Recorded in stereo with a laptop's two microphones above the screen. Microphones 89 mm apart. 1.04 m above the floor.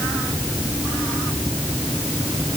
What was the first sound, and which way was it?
Only background noise.